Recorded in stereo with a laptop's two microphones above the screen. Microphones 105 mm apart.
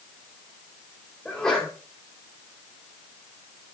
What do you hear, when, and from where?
1.2 s a sneeze: 5° left (ahead or behind), 4 m